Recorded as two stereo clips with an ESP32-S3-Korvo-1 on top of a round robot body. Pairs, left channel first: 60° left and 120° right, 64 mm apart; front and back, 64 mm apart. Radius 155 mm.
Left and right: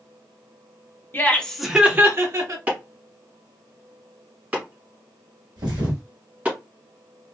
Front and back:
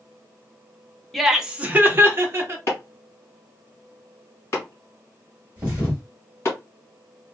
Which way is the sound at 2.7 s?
50° right.